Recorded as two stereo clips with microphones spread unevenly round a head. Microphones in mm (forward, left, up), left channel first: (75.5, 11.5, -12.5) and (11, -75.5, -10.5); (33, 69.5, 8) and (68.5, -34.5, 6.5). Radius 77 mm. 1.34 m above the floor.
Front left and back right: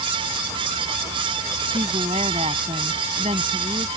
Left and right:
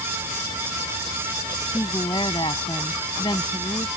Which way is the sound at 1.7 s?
175° left.